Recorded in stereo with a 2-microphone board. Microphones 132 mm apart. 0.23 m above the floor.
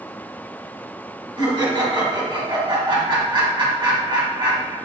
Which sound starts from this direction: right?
Laughter, at 1.4 s.